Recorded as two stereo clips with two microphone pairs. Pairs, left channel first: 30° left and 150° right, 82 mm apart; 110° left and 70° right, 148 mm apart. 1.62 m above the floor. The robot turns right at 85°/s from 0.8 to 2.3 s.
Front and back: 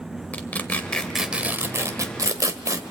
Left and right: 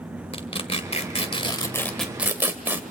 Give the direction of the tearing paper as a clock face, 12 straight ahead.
9 o'clock.